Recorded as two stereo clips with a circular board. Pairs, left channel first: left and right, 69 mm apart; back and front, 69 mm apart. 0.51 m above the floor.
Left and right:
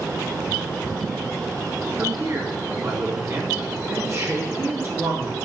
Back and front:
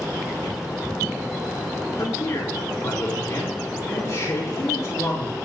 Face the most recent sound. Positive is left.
turn(degrees=-135)